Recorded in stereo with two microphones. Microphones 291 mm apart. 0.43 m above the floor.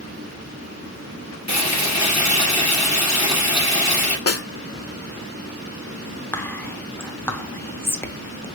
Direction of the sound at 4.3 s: 60° left (ahead or behind).